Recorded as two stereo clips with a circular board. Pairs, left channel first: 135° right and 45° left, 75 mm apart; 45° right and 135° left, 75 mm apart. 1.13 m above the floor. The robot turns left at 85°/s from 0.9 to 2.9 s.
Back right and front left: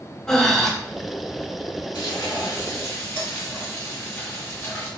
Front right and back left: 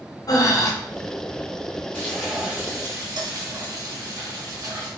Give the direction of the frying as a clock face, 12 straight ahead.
4 o'clock.